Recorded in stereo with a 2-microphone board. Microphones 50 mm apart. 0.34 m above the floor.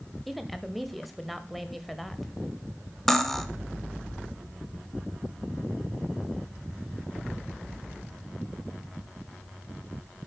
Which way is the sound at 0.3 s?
Centre (ahead or behind).